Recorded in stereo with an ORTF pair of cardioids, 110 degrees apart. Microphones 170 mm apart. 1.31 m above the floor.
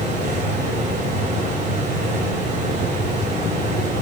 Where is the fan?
55° right, 5.5 m.